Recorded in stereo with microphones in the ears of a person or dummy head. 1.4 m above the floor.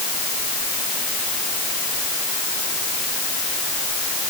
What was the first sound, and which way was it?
Only background noise.